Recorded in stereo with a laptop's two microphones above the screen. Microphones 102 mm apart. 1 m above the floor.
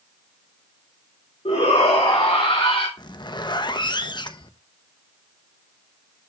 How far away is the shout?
About 3.5 m.